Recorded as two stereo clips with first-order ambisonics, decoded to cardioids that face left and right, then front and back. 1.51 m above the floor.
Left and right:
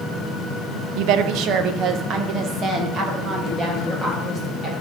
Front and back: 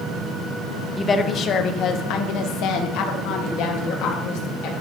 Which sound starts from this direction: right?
A woman speaking, at 1.0 s.